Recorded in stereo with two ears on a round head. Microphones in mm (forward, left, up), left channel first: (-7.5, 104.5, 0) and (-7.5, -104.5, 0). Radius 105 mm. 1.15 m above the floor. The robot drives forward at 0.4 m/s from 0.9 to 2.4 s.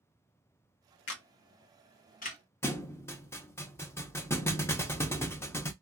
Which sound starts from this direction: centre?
A thud, at 2.6 s.